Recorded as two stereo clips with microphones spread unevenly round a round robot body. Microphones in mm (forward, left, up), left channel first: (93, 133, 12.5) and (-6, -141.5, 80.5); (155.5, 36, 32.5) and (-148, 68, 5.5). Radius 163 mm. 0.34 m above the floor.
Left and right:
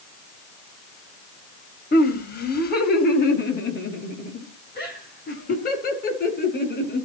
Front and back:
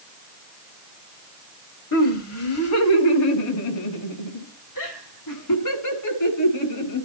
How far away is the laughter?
About 2 m.